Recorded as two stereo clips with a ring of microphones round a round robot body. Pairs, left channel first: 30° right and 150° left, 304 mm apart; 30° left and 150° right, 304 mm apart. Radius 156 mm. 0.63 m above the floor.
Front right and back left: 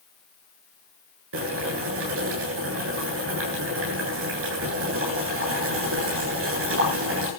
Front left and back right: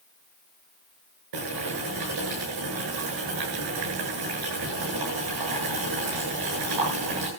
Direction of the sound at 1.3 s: 160° right.